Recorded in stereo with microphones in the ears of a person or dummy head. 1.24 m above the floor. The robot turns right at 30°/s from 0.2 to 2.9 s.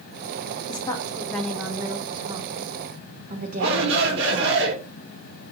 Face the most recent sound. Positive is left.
turn(degrees=-75)  # may be behind; listen again after turning